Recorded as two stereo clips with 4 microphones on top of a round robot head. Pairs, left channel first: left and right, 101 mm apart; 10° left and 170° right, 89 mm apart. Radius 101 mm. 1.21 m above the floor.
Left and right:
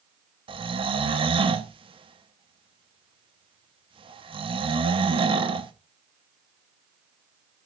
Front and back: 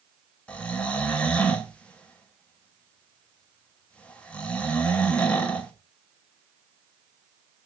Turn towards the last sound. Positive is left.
turn(degrees=-65)